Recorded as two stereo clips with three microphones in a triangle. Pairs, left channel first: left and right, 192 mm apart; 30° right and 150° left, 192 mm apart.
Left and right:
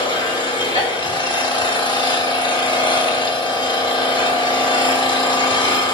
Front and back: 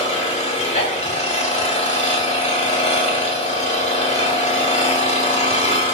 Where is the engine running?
20° left, 0.9 m.